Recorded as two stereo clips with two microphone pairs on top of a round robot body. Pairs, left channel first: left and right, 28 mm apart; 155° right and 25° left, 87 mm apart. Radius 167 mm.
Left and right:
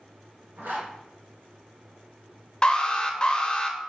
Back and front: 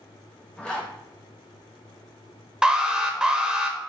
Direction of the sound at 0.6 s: 80° right.